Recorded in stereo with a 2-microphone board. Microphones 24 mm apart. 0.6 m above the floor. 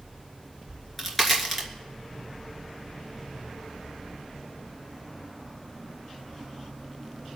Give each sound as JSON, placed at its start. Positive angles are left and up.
{"t": 0.7, "sound": "a crack", "side_deg": 10, "distance_m": 3.0}